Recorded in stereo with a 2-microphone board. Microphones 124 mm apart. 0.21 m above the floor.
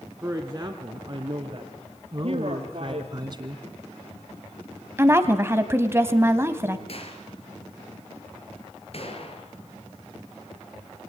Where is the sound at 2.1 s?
35° right (ahead or behind), 2.5 m.